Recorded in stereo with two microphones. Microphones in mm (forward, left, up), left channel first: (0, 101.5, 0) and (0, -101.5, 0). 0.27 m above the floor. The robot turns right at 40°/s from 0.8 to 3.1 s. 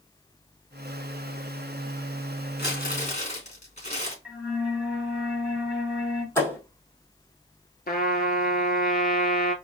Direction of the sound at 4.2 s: 5° right (ahead or behind).